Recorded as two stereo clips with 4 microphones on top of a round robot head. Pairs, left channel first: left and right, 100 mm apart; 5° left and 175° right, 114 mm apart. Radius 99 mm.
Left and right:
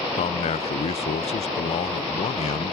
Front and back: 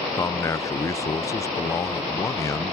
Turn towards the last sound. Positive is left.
turn(degrees=70)